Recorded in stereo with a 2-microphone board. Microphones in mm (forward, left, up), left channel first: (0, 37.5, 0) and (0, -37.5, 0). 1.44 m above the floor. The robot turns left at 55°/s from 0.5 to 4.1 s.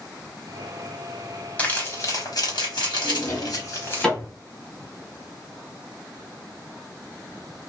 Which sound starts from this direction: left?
A drawer, at 3.0 s.